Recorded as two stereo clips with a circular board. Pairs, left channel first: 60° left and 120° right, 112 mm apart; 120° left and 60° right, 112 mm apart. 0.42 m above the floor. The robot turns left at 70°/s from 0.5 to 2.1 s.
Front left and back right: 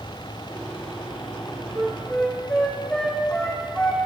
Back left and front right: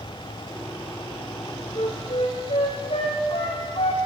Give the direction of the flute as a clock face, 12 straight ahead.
6 o'clock.